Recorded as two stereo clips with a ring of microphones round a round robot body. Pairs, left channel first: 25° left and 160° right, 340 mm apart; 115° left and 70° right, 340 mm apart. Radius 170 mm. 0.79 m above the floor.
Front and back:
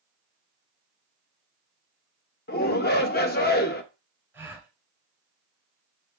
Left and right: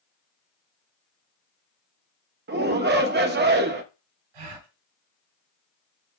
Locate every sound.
2.5 s a shout: 25° right, 1.0 m
4.3 s a gasp: 75° right, 2.5 m